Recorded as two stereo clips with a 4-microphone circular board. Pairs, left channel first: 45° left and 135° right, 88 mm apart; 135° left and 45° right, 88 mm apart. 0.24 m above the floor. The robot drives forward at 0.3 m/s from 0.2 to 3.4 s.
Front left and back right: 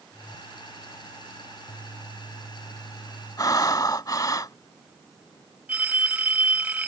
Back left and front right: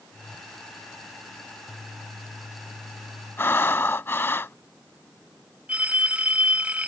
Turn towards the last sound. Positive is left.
turn(degrees=-90)